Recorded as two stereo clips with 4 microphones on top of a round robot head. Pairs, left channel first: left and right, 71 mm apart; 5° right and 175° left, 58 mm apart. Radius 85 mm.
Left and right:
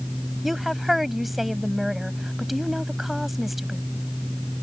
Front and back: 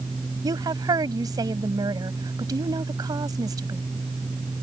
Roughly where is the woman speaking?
Behind.